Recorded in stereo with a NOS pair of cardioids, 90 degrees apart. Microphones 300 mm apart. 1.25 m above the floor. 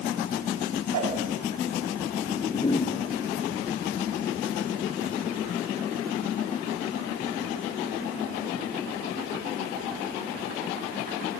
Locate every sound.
0.9 s a whoosh: 65° right, 6.5 m
2.2 s a whoosh: 15° left, 1.0 m